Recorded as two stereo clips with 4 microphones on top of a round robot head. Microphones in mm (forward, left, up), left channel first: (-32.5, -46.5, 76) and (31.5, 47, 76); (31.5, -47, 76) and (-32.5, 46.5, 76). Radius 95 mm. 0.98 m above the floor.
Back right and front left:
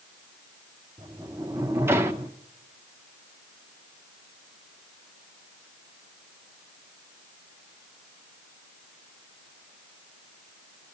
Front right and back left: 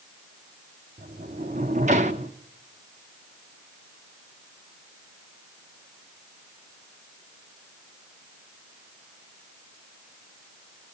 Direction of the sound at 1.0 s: 120° left.